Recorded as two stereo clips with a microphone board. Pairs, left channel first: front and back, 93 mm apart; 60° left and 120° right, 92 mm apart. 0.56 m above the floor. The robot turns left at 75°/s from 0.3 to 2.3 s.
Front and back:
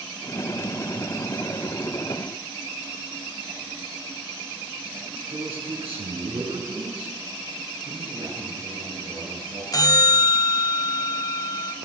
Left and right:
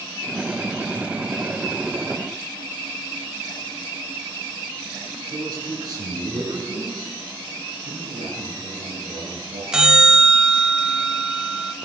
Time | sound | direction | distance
5.3 | a man speaking | 165° right | 7 m
7.8 | a man speaking | 115° right | 8.5 m
9.7 | a bell | 40° right | 0.9 m